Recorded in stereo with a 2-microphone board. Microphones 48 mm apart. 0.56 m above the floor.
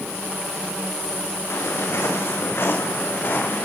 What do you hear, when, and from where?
1.5 s footsteps: 65° left (ahead or behind), 8 m; by 3.7 s 50° left (ahead or behind), 8.5 m